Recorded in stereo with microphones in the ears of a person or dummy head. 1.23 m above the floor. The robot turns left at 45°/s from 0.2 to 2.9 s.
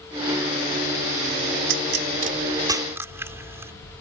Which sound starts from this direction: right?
A pop, at 1.7 s.